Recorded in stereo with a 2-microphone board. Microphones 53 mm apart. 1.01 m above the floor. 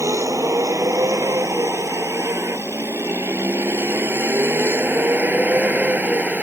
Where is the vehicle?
70° right (ahead or behind); by 6.4 s 30° right (ahead or behind).